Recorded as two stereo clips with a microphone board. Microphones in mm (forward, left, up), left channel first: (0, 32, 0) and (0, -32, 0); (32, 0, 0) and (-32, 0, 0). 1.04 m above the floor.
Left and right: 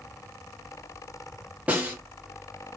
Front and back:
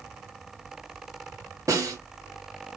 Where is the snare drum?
155° right, 1.6 m.